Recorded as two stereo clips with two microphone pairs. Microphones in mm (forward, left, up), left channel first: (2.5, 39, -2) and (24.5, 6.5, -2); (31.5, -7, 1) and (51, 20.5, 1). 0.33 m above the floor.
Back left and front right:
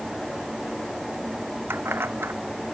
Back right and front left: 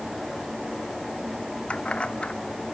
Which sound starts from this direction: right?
Keys jangling, at 1.7 s.